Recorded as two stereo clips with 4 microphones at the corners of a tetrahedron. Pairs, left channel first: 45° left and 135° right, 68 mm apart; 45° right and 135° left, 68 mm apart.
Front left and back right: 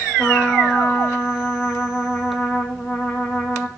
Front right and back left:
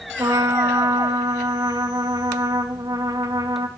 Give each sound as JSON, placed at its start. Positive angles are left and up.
{"t": 0.2, "sound": "a trumpet", "azimuth_deg": 115, "distance_m": 2.5}